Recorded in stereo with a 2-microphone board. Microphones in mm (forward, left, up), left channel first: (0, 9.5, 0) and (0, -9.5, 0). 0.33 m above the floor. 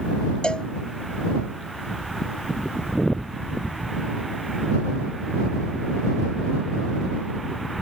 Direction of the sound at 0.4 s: 60° left (ahead or behind).